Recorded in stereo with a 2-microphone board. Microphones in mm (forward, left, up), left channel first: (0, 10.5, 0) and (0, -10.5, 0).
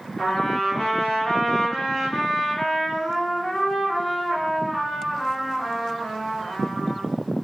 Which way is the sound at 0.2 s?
25° left (ahead or behind).